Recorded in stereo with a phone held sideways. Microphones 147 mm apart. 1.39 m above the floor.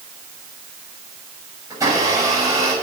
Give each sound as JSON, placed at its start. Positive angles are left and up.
{"t": 1.7, "sound": "a blender", "side_deg": -25, "distance_m": 7.5}